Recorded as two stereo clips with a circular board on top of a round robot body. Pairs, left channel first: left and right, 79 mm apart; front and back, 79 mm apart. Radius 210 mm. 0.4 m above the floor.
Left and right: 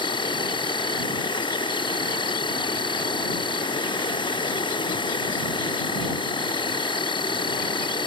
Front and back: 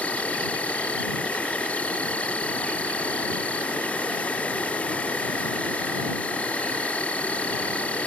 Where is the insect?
75° left.